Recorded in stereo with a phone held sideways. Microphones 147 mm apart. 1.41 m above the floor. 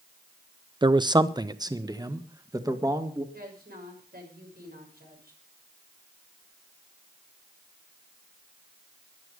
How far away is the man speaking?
About 0.6 m.